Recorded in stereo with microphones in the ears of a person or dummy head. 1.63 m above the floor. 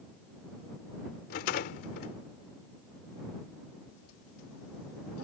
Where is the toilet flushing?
90° left.